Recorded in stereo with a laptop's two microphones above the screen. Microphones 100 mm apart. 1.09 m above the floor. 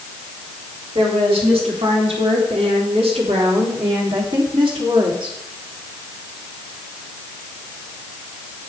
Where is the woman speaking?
80° right, 3.5 m; by 5.4 s 50° right (ahead or behind), 3 m.